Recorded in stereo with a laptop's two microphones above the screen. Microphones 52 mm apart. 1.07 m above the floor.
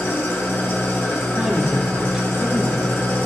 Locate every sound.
0.0 s an engine running: 45° left (ahead or behind), 1.0 m
1.4 s a woman speaking: 5° right (ahead or behind), 3 m